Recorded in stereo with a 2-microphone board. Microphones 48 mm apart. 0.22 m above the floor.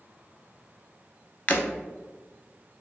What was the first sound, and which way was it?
Breaking glass, 40° left (ahead or behind).